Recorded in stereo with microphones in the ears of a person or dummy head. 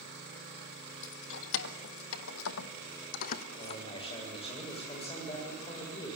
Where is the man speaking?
25° left (ahead or behind), 6.5 m.